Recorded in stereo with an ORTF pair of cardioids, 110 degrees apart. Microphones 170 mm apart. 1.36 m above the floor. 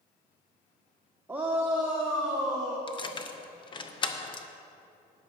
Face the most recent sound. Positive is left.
turn(degrees=30)